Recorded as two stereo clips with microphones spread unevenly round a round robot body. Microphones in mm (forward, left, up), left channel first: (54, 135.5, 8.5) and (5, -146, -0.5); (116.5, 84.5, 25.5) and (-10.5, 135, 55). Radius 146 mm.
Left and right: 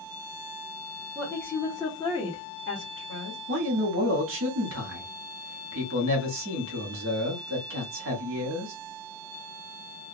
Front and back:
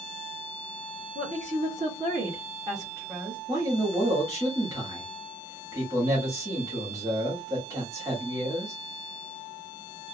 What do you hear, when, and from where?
1.1 s a woman speaking: 170° left, 1.8 m; by 3.4 s 65° left, 1.3 m
3.5 s a man speaking: 125° right, 1.1 m